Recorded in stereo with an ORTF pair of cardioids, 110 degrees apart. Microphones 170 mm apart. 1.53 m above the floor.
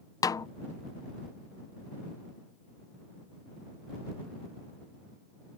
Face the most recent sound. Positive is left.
turn(degrees=20)